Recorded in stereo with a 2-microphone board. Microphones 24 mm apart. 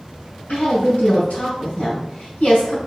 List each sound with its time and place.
0.5 s a woman speaking: 65° left (ahead or behind), 3.5 m